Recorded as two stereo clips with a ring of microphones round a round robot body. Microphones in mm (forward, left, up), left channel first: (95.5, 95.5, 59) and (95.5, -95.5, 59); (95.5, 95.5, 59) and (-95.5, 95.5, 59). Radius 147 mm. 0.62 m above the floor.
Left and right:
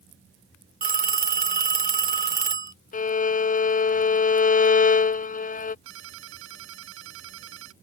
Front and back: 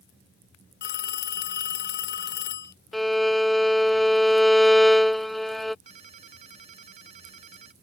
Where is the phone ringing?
45° right.